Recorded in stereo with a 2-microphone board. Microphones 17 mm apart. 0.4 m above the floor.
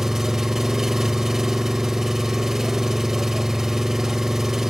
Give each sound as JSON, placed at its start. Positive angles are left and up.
{"t": 0.0, "sound": "an engine running", "side_deg": -30, "distance_m": 1.0}